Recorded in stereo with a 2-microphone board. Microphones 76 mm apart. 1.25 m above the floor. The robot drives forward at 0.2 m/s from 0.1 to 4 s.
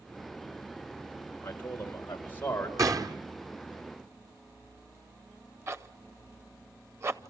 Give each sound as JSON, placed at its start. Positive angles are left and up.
{"t": 1.4, "sound": "a man speaking", "side_deg": 30, "distance_m": 4.0}
{"t": 2.8, "sound": "a gunshot", "side_deg": -50, "distance_m": 1.3}
{"t": 5.7, "sound": "a zipper", "side_deg": -35, "distance_m": 0.7}